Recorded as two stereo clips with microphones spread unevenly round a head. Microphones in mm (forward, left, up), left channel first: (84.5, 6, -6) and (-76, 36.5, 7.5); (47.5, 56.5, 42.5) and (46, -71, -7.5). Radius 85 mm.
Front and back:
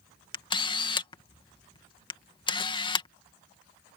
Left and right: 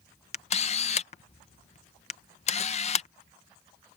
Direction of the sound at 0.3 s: 50° left.